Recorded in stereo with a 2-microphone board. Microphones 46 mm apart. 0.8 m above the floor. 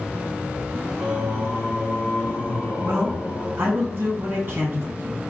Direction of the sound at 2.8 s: 50° right (ahead or behind).